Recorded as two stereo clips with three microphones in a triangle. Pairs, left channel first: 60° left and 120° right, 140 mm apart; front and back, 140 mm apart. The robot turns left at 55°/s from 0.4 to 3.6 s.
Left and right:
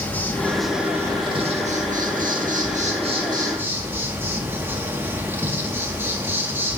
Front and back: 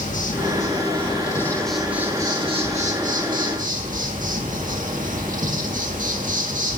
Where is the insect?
15° right, 1.7 m; by 6.8 s 170° left, 1.7 m.